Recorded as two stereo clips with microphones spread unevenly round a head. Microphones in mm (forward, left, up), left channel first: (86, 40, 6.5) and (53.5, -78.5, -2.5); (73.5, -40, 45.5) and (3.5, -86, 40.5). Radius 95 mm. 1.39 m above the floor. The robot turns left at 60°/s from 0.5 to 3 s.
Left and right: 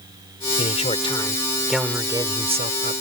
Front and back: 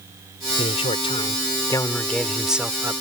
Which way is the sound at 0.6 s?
55° left.